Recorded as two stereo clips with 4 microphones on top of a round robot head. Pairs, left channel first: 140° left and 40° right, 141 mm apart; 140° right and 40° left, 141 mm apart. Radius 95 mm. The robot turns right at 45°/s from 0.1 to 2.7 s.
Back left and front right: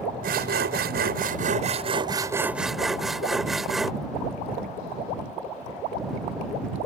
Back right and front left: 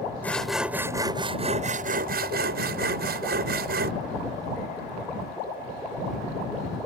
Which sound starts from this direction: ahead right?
Sawing, at 0.2 s.